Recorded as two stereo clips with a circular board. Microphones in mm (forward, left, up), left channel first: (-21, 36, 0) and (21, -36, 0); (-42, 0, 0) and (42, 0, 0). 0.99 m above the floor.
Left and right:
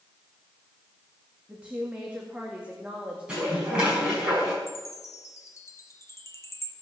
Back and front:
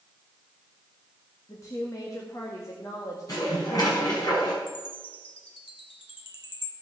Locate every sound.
1.5 s a woman speaking: 135° right, 1.9 m
3.3 s dishes clattering: 140° right, 5.5 m
4.7 s a chime: 175° left, 1.4 m